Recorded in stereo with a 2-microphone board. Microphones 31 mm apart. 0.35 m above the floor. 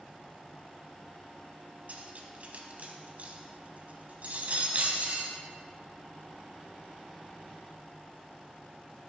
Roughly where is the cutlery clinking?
Right.